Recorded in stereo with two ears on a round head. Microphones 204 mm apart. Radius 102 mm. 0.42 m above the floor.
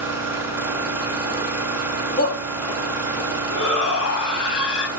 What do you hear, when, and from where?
0.0 s an engine running: 10° right (ahead or behind), 2.5 m
2.2 s a shout: 40° left (ahead or behind), 3 m
3.5 s a shout: 70° left (ahead or behind), 3 m